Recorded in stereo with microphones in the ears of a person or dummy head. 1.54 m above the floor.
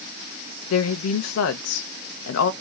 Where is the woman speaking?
90° left, 0.5 m.